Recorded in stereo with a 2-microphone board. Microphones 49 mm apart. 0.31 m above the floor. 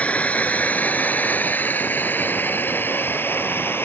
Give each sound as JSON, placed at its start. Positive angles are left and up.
{"t": 0.0, "sound": "a drone", "side_deg": 25}